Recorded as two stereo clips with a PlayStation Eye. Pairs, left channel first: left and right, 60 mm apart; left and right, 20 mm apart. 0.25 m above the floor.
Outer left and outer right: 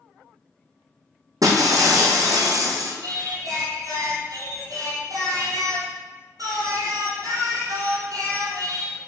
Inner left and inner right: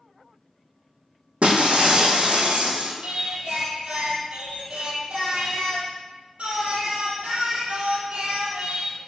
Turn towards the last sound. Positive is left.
turn(degrees=-65)  # may be behind; listen again after turning